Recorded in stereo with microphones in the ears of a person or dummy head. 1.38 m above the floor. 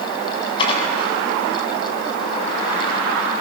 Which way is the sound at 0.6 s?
30° left (ahead or behind).